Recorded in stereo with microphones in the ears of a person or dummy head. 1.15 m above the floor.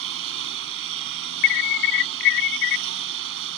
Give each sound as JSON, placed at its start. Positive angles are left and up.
{"t": 0.0, "sound": "a lawn mower", "side_deg": -70}
{"t": 1.4, "sound": "an alarm", "side_deg": 55}